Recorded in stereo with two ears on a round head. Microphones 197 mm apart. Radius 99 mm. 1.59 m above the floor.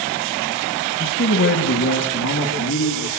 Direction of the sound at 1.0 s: 70° left (ahead or behind).